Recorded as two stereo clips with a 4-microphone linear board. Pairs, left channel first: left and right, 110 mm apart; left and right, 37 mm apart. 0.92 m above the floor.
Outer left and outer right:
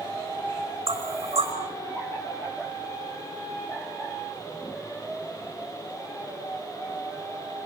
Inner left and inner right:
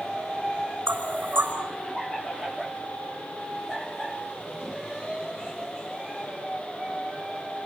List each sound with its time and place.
0.9 s knocking: 70° right (ahead or behind), 4.5 m